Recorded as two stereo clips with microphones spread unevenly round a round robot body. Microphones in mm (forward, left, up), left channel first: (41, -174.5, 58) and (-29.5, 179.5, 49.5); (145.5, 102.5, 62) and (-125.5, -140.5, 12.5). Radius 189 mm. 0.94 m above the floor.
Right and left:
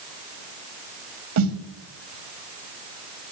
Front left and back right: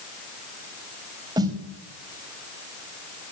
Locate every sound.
1.4 s a snare drum: 145° left, 2 m